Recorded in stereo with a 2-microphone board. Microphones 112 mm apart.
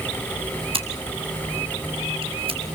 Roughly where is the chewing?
I don't hear chewing.